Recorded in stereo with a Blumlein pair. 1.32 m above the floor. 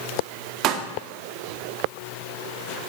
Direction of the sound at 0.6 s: 35° right.